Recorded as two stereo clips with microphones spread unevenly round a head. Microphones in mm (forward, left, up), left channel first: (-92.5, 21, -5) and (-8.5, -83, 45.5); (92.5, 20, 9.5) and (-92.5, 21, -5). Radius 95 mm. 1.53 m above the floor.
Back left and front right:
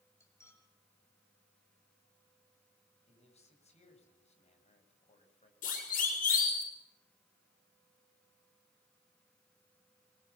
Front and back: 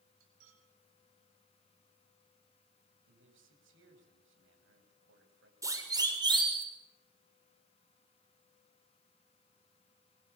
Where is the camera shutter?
No camera shutter in this recording.